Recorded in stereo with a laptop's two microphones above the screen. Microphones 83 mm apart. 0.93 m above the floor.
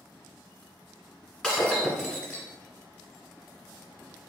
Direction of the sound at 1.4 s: 5° left (ahead or behind).